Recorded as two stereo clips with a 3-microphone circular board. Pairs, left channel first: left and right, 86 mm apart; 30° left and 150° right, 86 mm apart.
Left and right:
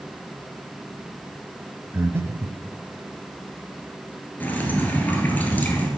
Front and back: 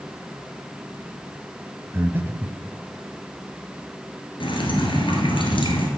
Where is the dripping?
20° left, 1.2 m.